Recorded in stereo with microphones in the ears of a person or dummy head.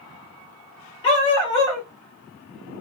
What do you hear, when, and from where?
1.0 s a dog barking: 20° left (ahead or behind), 1.0 m